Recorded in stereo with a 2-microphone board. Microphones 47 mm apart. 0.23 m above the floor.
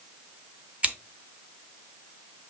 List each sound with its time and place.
0.8 s scissors: 25° right (ahead or behind), 1.7 m